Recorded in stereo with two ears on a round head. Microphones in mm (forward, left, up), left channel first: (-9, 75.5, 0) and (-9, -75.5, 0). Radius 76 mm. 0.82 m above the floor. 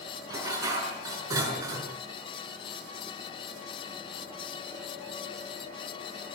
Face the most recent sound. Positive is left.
turn(degrees=-20)  # may be behind; listen again after turning